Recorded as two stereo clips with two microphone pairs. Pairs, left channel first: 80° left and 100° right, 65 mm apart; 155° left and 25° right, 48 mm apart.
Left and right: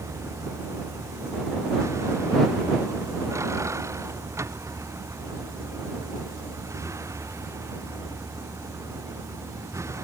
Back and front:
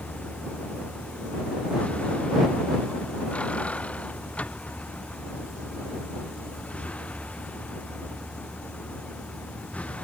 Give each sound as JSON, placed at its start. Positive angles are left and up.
{"t": 0.0, "sound": "a vehicle", "azimuth_deg": -145}